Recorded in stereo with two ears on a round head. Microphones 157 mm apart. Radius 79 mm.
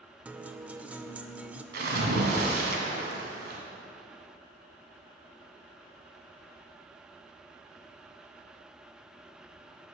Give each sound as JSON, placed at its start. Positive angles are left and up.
{"t": 0.2, "sound": "a guitar", "side_deg": -10, "distance_m": 0.6}
{"t": 1.7, "sound": "a splash", "side_deg": -60, "distance_m": 1.9}